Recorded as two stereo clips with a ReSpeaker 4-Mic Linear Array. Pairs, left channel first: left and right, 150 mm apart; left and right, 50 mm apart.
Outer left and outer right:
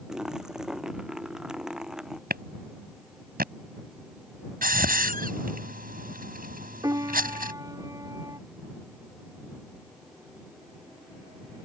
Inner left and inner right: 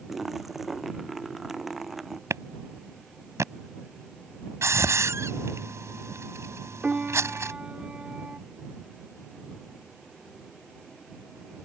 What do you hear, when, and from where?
0.1 s a splash: 5° right (ahead or behind)
2.3 s a clap: 85° right
4.6 s a hiss: 70° right (ahead or behind)
6.8 s a piano: 25° right (ahead or behind)